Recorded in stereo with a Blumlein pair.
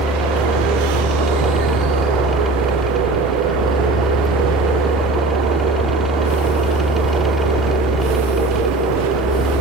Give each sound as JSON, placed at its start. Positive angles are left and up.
{"t": 0.0, "sound": "a fan", "azimuth_deg": 5}